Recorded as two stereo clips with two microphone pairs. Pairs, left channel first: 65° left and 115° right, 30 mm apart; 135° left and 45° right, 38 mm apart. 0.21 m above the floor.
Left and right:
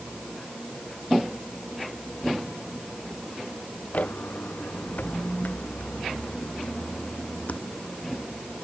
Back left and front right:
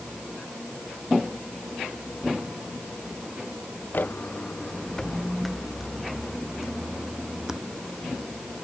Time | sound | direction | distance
3.9 | footsteps | 100° left | ?